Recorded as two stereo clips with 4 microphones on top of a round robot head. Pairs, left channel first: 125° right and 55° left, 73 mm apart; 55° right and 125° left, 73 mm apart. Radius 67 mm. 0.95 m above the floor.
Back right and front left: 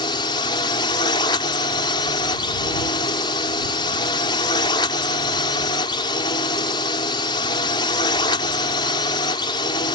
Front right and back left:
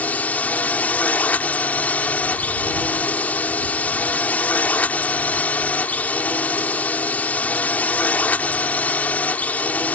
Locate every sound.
0.0 s a drone: 120° right